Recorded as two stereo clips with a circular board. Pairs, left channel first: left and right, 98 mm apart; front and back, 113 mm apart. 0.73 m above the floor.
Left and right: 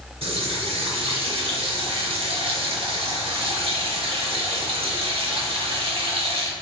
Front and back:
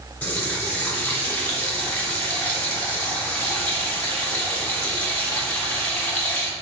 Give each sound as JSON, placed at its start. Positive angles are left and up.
{"t": 0.2, "sound": "a running tap", "azimuth_deg": -75, "distance_m": 0.9}